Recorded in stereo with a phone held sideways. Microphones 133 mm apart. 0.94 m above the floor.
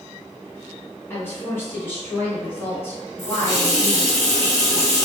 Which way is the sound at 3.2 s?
50° left (ahead or behind).